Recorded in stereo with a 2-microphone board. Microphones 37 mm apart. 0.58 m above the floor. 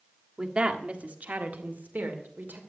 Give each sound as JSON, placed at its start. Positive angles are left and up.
{"t": 0.4, "sound": "a woman speaking", "side_deg": -25, "distance_m": 1.4}